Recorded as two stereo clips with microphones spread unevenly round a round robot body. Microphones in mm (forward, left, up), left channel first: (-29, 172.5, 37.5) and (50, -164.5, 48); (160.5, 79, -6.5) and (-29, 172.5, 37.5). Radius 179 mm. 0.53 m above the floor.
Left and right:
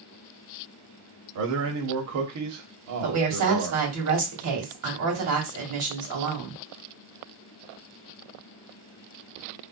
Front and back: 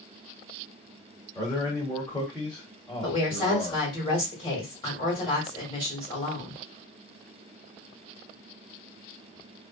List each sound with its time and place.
1.4 s a man speaking: 95° right, 1.1 m
3.0 s a woman speaking: 75° right, 1.6 m